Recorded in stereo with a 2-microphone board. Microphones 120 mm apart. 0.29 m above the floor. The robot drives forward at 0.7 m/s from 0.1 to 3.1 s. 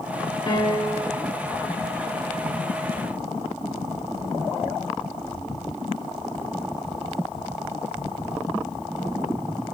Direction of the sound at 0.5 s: 40° left (ahead or behind).